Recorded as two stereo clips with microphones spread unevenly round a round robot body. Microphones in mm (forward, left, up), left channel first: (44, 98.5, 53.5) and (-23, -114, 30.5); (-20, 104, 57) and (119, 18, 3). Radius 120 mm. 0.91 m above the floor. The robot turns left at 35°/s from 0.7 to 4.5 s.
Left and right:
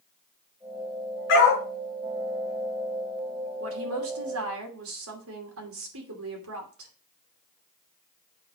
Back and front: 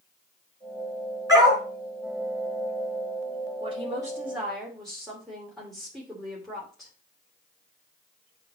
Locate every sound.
1.3 s a dog barking: 40° left, 4 m; by 1.6 s 30° left, 4 m
3.6 s a woman speaking: 90° right, 2.5 m; by 6.9 s 120° right, 2.5 m